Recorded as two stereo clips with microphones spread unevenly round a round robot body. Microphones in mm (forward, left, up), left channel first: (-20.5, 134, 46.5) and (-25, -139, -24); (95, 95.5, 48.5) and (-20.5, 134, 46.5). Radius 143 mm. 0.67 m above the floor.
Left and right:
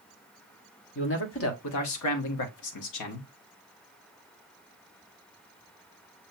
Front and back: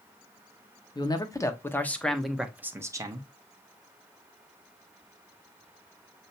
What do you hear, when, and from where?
0.9 s a man speaking: 35° left, 1.5 m; by 3.3 s 115° left, 1.3 m